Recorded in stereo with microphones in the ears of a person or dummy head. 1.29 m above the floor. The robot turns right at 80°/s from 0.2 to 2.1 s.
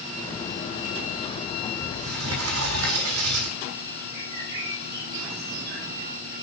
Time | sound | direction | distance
1.8 | a sliding door | 70° right (ahead or behind) | 5.5 m
4.1 | a bird | 55° right (ahead or behind) | 7.5 m